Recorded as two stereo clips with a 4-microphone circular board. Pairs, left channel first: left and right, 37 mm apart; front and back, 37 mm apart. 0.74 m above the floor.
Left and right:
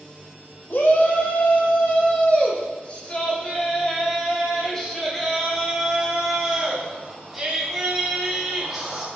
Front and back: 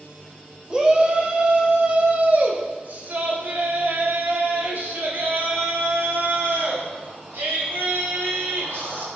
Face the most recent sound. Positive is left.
turn(degrees=-175)